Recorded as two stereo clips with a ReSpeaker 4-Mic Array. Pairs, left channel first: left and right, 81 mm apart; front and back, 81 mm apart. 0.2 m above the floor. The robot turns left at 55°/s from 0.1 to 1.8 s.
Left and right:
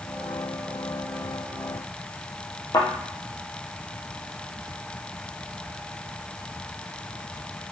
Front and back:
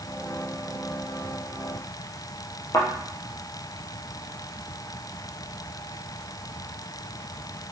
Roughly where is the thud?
Ahead left.